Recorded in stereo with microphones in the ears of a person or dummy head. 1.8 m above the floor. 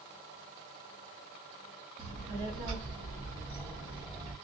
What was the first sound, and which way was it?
A child speaking, 40° right (ahead or behind).